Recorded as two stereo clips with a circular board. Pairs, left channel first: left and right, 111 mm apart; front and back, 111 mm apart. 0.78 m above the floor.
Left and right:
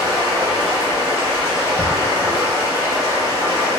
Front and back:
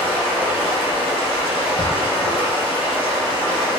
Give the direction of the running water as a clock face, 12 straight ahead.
11 o'clock.